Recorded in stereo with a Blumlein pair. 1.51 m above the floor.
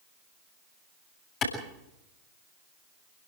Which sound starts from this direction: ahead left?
A clap, at 1.4 s.